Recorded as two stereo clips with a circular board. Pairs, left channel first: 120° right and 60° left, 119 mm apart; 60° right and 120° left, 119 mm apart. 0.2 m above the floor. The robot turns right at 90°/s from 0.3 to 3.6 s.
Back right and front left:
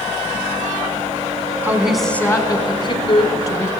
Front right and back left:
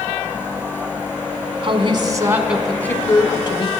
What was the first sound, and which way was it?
A woman speaking, 120° left.